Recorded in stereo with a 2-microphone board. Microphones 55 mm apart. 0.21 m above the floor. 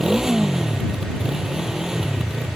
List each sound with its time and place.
0.0 s a motorcycle: 10° right (ahead or behind)